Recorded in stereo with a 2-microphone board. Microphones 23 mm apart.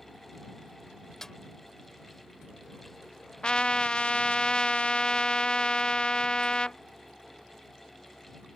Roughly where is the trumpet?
Left.